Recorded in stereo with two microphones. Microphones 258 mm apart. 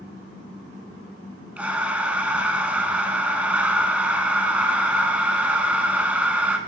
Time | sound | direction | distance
1.6 | breathing | 5° right (ahead or behind) | 0.6 m